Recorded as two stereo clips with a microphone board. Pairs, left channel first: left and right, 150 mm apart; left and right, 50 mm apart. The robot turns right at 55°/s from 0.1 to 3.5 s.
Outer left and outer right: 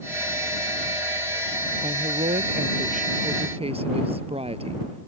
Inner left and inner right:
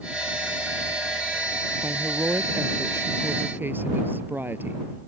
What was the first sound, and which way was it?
A woman speaking, 135° right.